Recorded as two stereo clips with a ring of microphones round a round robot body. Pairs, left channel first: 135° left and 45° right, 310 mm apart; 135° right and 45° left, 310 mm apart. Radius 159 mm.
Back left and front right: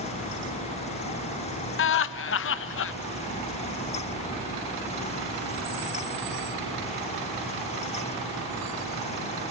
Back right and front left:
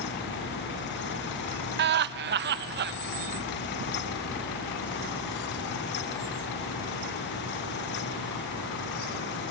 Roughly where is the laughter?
Left.